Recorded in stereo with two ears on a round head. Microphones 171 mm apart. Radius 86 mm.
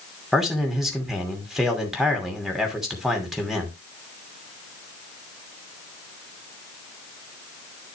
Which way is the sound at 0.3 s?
Centre (ahead or behind).